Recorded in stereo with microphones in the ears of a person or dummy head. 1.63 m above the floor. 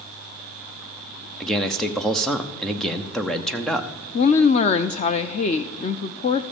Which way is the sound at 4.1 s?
40° left (ahead or behind).